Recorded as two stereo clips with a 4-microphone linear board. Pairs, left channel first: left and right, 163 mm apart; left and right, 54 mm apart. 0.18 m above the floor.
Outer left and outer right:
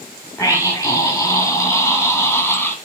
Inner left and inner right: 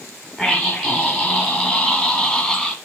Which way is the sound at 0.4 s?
20° left (ahead or behind).